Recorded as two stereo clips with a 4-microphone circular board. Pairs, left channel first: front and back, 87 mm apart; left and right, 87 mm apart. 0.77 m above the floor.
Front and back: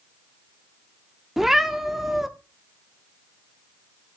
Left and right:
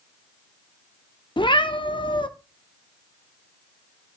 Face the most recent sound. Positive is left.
turn(degrees=95)